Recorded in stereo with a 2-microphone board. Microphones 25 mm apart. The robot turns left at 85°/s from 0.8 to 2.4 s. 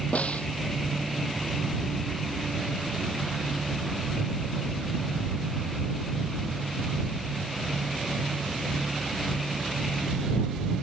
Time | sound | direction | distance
0.1 | a snare drum | 60° left (ahead or behind) | ?